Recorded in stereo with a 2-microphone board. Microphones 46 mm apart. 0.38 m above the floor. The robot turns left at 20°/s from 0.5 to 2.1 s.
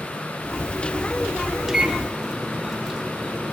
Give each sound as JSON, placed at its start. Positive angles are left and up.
{"t": 1.7, "sound": "a microwave", "side_deg": -10, "distance_m": 1.1}